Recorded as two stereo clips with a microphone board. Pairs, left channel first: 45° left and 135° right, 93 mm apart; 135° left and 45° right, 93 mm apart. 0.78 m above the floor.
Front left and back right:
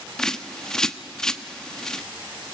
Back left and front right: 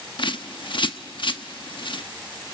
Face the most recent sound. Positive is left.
turn(degrees=130)